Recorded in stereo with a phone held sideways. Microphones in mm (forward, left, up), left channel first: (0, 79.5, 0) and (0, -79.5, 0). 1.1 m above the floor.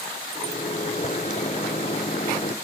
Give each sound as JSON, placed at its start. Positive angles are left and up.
{"t": 0.3, "sound": "a microwave", "side_deg": 45, "distance_m": 0.5}